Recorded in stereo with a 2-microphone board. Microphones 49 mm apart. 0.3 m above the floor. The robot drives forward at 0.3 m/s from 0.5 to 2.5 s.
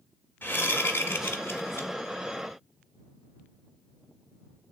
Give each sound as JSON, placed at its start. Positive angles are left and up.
{"t": 0.4, "sound": "a whoosh", "side_deg": 50, "distance_m": 0.8}